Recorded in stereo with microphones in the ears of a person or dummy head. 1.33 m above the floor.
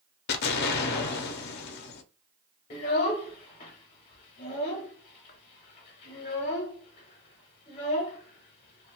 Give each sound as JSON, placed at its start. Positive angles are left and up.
{"t": 0.3, "sound": "an explosion", "side_deg": 55, "distance_m": 0.5}
{"t": 2.7, "sound": "a child speaking", "side_deg": 35, "distance_m": 0.8}